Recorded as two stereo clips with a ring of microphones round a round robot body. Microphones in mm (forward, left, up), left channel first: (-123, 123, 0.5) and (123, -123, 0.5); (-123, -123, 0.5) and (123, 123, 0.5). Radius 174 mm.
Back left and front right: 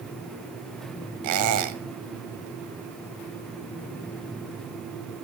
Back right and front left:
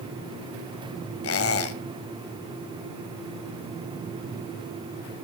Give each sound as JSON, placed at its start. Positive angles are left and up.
{"t": 1.2, "sound": "a squeak", "azimuth_deg": -85, "distance_m": 1.7}